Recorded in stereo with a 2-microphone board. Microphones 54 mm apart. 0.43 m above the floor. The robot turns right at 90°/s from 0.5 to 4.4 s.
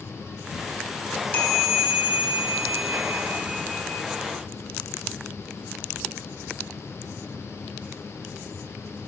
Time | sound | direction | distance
1.1 | a chime | 130° left | 2.0 m